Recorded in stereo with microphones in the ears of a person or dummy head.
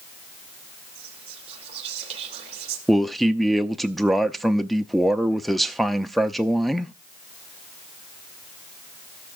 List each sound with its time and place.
0.9 s whispering: 35° right (ahead or behind), 3 m
2.9 s a man speaking: centre (ahead or behind), 0.7 m